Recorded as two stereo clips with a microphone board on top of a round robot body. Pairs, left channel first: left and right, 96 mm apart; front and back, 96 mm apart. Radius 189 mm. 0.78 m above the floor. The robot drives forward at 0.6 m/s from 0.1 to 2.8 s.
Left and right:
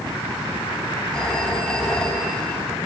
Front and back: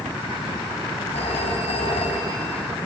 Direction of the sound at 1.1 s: 5° left.